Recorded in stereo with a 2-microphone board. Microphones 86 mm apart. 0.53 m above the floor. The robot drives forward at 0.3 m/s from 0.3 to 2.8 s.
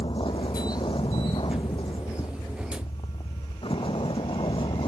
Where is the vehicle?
80° left.